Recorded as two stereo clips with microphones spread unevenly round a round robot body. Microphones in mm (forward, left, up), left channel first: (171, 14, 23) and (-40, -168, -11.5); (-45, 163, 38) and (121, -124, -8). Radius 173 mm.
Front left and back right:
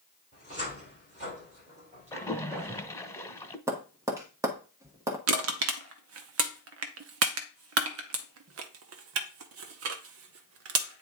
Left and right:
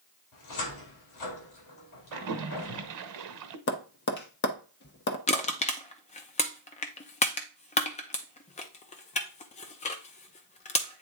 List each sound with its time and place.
0.3 s a cupboard door: 155° left, 2.5 m
2.1 s a splash: 35° right, 0.9 m
3.7 s tapping: 160° left, 0.9 m
5.3 s crushing: 165° right, 0.6 m